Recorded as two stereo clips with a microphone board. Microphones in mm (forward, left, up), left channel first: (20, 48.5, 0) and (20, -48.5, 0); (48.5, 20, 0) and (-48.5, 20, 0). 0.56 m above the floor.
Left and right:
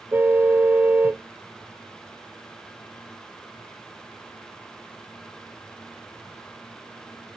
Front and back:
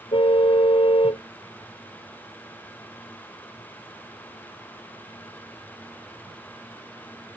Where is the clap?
I don't hear a clap.